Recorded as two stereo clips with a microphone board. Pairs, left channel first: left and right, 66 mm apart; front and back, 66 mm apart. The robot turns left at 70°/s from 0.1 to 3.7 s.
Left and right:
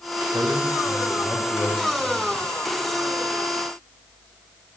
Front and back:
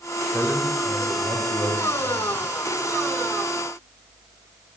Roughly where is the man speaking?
Right.